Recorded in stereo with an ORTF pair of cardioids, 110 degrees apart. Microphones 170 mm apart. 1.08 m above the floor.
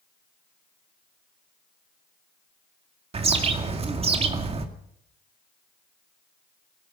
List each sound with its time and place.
3.1 s a bird: 35° right, 2 m